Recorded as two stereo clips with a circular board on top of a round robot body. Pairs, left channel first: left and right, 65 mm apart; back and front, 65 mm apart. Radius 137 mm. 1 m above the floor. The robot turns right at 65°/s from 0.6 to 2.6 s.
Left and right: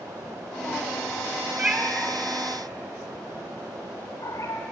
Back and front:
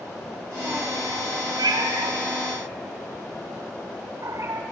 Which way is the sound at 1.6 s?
20° right.